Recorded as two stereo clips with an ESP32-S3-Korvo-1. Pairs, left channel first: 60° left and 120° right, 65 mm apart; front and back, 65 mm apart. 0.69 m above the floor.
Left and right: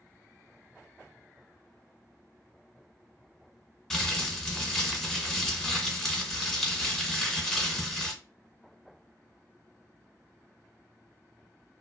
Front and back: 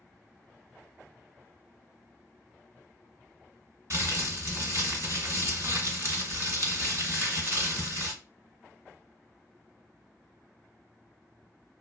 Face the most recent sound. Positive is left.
turn(degrees=145)